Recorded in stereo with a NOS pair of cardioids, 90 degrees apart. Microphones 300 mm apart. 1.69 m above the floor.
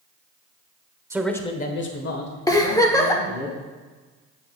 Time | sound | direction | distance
1.1 | a man speaking | 10° right | 1.2 m
2.5 | a giggle | 10° left | 1.1 m